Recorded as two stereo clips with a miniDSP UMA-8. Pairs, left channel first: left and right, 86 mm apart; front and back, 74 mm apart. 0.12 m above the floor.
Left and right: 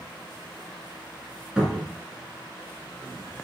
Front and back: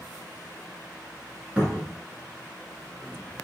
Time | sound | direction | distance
1.6 | a cupboard door | 150° right | 1.0 m